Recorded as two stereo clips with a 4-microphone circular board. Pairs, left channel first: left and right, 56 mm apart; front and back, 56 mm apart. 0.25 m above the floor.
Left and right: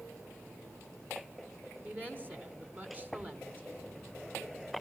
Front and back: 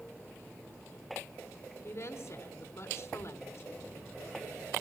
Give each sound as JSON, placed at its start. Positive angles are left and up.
{"t": 1.8, "sound": "a woman speaking", "azimuth_deg": -35, "distance_m": 2.5}